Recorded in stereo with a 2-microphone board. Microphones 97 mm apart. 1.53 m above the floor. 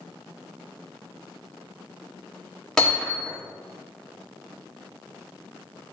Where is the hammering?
5° left (ahead or behind), 3 m.